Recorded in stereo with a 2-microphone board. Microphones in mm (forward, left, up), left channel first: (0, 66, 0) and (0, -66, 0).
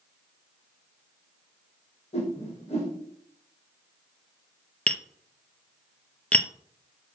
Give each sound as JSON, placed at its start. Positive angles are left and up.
{"t": 2.1, "sound": "a whoosh", "side_deg": 50, "distance_m": 4.0}
{"t": 4.9, "sound": "tapping", "side_deg": 10, "distance_m": 0.5}